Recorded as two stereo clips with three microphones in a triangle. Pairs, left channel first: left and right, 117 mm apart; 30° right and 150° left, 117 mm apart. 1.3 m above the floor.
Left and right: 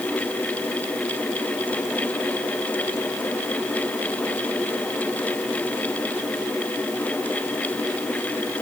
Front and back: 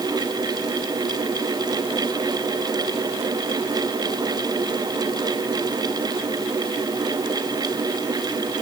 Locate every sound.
Only background noise.